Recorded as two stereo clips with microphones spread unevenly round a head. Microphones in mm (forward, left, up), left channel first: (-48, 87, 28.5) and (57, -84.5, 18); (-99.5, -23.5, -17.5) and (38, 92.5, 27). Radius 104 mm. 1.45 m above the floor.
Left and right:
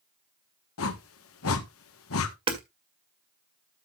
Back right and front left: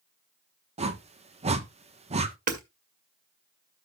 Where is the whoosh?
95° left, 1.3 m.